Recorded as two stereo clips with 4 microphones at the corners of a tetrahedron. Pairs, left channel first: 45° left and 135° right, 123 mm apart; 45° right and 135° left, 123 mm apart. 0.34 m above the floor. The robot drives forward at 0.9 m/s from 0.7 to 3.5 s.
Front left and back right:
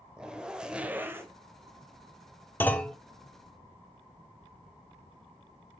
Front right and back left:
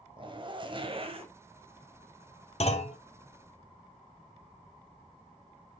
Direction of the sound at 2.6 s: 30° right.